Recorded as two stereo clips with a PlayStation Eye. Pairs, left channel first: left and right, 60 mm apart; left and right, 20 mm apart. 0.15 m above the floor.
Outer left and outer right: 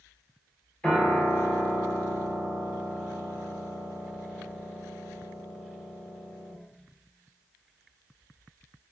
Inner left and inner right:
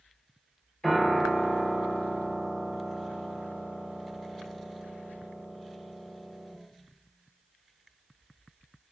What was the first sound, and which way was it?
A piano, 20° left (ahead or behind).